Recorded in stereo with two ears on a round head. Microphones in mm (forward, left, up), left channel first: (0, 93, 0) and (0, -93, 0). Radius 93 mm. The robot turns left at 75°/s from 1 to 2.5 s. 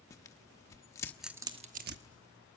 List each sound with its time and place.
0.1 s tearing paper: 15° left (ahead or behind), 1.0 m; by 2.0 s 60° right (ahead or behind), 1.0 m